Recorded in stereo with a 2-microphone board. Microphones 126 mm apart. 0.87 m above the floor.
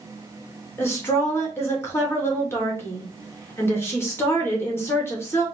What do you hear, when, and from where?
0.8 s a woman speaking: 20° left (ahead or behind), 1.6 m